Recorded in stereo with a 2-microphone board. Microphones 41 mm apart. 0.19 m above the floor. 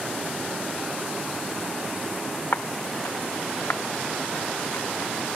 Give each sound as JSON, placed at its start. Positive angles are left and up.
{"t": 2.5, "sound": "footsteps", "side_deg": 85}